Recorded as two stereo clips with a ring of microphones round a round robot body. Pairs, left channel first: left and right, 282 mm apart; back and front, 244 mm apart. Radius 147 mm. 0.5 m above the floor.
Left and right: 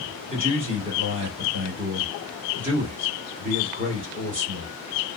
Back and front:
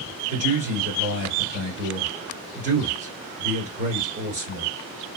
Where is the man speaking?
35° right, 2 m.